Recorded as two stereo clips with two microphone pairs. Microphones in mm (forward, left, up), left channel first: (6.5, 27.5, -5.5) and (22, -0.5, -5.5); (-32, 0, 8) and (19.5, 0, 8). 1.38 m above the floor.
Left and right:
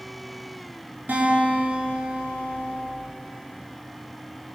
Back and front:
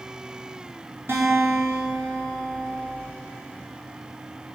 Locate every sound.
1.1 s a guitar: 35° right, 7.5 m